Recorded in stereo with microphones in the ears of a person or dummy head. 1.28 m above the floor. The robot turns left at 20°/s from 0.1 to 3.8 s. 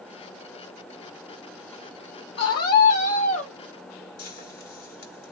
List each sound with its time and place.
2.4 s a scream: 65° left (ahead or behind), 0.7 m; by 3.5 s 40° left (ahead or behind), 0.7 m
4.2 s frying: 85° left, 1.7 m